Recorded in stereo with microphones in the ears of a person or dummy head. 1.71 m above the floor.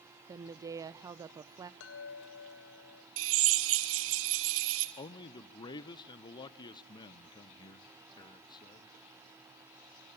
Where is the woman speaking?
15° right (ahead or behind), 0.6 m.